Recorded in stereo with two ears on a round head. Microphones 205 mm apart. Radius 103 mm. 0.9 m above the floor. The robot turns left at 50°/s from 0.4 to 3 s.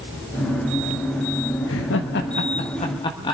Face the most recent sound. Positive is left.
turn(degrees=20)  # may be behind; listen again after turning